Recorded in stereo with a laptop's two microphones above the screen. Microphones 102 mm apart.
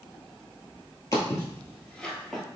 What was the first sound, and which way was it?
Footsteps, 35° left (ahead or behind).